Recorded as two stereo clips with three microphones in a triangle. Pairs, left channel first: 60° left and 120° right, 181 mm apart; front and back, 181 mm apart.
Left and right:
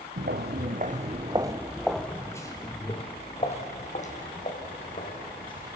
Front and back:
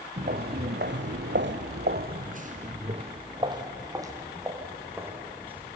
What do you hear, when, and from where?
0.2 s footsteps: 140° right, 1.6 m; by 5.8 s 100° left, 4.5 m